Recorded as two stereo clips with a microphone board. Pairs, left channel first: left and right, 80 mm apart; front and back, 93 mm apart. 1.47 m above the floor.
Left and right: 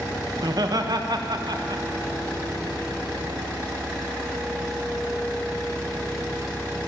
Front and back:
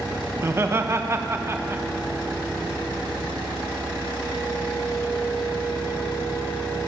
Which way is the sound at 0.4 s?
120° right.